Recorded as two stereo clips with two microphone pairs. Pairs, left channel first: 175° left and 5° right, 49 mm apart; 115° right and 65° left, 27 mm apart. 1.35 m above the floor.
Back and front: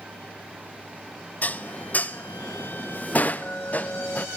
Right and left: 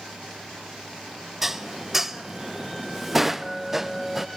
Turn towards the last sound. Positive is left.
turn(degrees=135)